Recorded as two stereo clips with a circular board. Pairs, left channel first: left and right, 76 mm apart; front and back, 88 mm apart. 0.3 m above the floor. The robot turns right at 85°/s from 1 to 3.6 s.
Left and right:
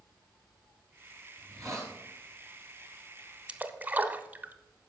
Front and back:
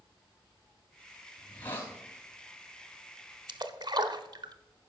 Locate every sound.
1.4 s a hiss: 90° right, 2 m; by 1.9 s 40° right, 2 m
3.5 s a splash: 160° right, 0.8 m; by 4.5 s 150° right, 0.8 m